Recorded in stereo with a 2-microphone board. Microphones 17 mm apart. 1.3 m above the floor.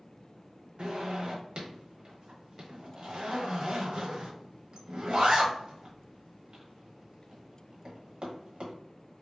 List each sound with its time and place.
0.8 s a zipper: 70° right (ahead or behind), 0.8 m